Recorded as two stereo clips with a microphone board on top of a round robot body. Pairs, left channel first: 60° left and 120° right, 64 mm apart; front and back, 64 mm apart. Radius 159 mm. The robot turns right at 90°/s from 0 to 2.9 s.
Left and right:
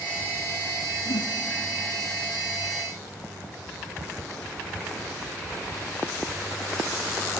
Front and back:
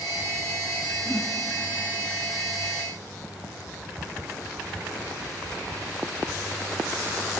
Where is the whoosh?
70° left, 1.7 m; by 1.4 s 95° left, 1.7 m.